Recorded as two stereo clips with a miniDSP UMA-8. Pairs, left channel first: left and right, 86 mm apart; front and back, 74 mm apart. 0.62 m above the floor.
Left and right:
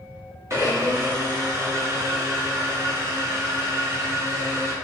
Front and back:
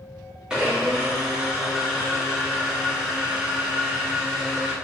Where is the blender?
105° right, 1.1 m.